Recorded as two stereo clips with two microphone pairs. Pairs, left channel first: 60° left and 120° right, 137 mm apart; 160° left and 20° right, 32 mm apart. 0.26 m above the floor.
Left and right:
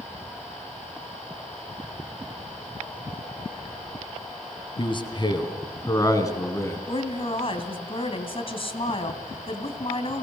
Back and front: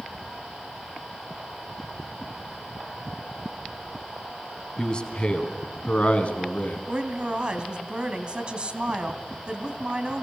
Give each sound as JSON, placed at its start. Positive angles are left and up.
{"t": 4.8, "sound": "a man speaking", "azimuth_deg": 100, "distance_m": 2.5}
{"t": 6.9, "sound": "a woman speaking", "azimuth_deg": 25, "distance_m": 2.5}